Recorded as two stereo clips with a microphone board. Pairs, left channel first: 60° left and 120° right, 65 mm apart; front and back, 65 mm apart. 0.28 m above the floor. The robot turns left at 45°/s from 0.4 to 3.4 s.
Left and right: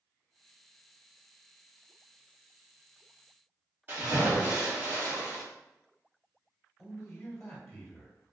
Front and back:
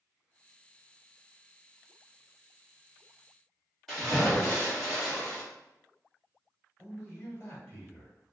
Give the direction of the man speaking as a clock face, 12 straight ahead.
12 o'clock.